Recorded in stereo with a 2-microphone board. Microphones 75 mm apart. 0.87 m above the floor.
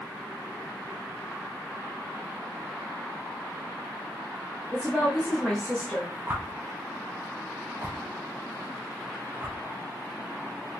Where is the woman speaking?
5° left (ahead or behind), 0.9 m.